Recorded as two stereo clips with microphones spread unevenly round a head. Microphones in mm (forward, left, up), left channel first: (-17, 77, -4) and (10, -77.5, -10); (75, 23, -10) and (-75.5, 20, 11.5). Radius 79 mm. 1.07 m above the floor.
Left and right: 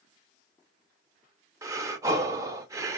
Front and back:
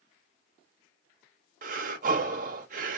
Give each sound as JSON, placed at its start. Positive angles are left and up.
{"t": 1.6, "sound": "breathing", "azimuth_deg": -145, "distance_m": 0.5}